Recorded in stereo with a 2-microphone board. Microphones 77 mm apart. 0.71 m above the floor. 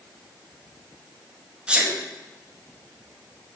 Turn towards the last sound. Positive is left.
turn(degrees=-15)  # may be behind; listen again after turning